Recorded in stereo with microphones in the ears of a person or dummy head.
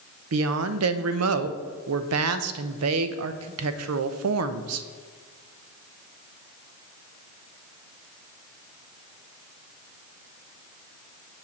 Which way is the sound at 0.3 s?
80° right.